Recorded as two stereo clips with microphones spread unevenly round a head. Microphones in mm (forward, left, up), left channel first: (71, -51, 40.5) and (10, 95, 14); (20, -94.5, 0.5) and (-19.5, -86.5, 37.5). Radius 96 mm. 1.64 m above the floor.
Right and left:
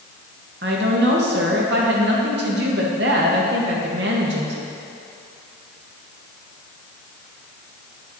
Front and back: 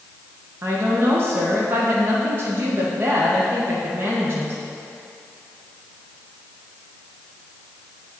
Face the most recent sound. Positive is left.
turn(degrees=155)